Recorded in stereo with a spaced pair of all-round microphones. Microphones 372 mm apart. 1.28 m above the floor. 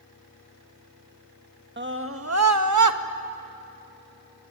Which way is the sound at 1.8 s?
30° right (ahead or behind).